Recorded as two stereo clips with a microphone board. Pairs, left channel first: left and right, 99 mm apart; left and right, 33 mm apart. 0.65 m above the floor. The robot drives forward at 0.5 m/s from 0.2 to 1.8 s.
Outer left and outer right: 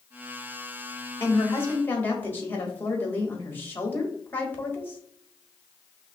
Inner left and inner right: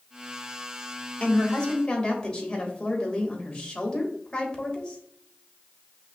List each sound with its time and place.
1.2 s a woman speaking: 25° left (ahead or behind), 1.1 m; by 5.0 s 20° left (ahead or behind), 1.4 m